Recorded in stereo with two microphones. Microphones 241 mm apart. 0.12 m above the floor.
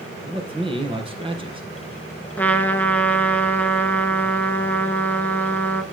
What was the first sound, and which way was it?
A man speaking, 20° right (ahead or behind).